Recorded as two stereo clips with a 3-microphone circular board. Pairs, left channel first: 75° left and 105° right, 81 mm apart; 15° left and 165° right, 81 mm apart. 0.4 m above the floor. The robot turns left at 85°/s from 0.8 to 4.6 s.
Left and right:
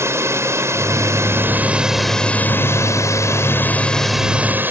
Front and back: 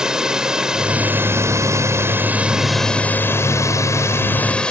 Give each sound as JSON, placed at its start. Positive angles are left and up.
{"t": 0.0, "sound": "a drone", "azimuth_deg": -90}